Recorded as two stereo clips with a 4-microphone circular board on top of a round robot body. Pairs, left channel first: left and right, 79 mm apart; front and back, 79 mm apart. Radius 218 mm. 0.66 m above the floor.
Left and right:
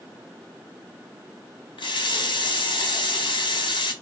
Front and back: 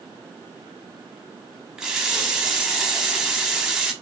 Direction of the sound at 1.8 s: 100° left.